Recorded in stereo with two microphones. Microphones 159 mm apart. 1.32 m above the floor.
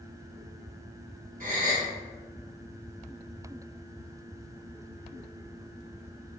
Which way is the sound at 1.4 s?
65° right (ahead or behind).